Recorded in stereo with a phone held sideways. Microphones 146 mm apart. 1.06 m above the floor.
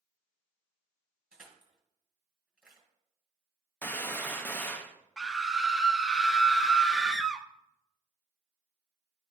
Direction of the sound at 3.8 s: 10° left (ahead or behind).